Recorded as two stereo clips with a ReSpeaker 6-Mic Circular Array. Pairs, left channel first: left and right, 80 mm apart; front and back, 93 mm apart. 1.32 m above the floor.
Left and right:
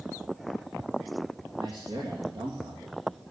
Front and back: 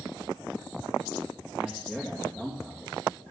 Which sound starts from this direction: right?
A man speaking, at 1.6 s.